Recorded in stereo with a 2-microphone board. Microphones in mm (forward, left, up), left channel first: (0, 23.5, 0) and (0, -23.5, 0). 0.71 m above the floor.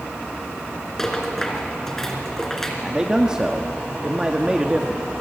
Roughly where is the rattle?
Centre.